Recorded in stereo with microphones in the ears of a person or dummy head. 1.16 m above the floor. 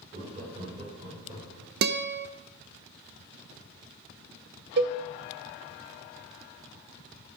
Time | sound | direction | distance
0.1 | laughter | 40° right (ahead or behind) | 4.5 m
1.8 | a guitar | 65° right (ahead or behind) | 0.6 m
4.8 | a cowbell | 55° right (ahead or behind) | 1.0 m